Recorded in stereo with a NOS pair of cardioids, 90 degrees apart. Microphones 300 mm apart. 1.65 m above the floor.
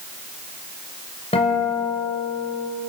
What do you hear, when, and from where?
1.3 s a guitar: 20° left, 7.5 m